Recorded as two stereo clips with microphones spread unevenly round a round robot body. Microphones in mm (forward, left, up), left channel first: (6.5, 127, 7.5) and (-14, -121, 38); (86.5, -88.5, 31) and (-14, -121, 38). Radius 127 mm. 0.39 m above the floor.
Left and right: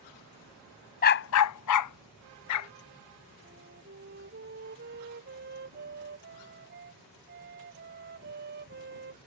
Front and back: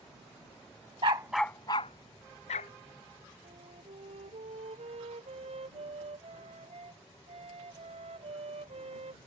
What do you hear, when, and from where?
1.0 s a dog barking: 140° left; by 2.7 s 60° left
3.4 s a flute: 145° right